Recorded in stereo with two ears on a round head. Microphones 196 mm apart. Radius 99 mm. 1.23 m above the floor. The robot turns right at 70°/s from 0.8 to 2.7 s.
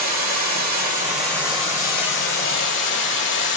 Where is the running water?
30° right, 1.3 m; by 3.6 s 105° left, 1.3 m.